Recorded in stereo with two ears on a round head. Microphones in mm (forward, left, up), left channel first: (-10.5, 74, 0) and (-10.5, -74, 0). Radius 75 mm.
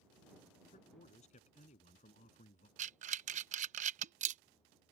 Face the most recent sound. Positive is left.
turn(degrees=-45)  # may be behind; listen again after turning